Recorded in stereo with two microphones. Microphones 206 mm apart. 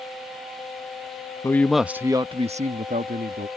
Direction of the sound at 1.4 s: 15° left (ahead or behind).